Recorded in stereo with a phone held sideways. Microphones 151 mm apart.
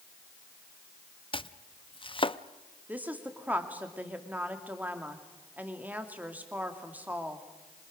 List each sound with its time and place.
1.3 s chopping: 35° left (ahead or behind), 0.5 m
2.9 s a woman speaking: 10° right (ahead or behind), 2.5 m